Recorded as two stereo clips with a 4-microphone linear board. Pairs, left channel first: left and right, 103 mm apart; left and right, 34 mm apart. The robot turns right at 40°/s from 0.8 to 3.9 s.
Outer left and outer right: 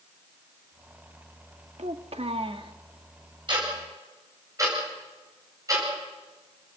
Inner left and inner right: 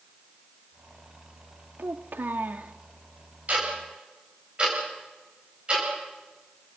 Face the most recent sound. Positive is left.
turn(degrees=-30)  # may be behind; listen again after turning